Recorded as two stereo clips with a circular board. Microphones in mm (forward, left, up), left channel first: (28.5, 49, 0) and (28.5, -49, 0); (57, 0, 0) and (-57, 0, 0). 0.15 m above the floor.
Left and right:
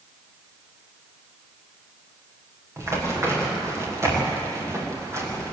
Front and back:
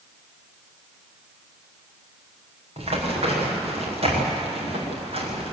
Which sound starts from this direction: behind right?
Running footsteps, at 2.8 s.